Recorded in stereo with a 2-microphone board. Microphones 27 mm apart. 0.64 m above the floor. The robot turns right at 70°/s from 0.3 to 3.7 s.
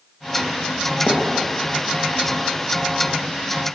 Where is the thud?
75° left (ahead or behind), 6 m; by 1.3 s 60° left (ahead or behind), 6 m.